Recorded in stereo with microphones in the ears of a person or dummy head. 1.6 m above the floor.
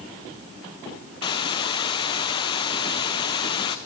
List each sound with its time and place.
1.2 s a hiss: 30° left (ahead or behind), 0.7 m